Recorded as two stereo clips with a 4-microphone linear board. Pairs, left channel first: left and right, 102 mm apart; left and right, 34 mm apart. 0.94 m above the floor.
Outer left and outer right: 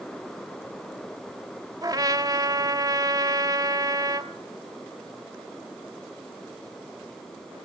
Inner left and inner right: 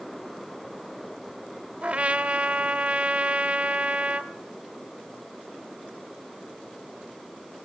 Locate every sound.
1.8 s a trumpet: 35° right (ahead or behind), 0.8 m